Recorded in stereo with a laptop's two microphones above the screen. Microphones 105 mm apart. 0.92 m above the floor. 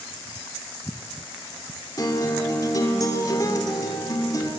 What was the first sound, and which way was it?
A guitar, 35° left (ahead or behind).